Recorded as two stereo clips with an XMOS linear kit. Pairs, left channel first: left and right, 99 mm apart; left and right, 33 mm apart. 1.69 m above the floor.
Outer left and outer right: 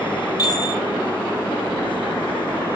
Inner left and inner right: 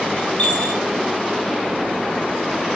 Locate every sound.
0.4 s a chime: 40° left (ahead or behind), 2 m